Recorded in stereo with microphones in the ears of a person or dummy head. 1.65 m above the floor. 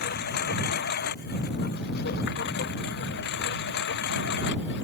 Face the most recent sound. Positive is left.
turn(degrees=65)  # may be behind; listen again after turning